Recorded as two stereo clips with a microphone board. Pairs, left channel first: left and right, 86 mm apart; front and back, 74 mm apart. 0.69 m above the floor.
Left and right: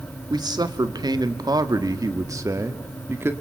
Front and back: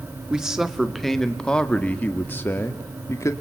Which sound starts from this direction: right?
A man speaking, at 0.3 s.